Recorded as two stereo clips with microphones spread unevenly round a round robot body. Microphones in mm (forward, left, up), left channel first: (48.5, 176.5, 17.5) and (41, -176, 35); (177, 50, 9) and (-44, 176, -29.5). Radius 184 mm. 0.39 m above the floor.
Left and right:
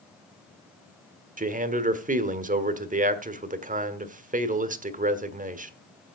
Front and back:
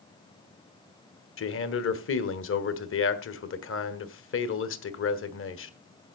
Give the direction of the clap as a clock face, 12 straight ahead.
I don't hear a clap.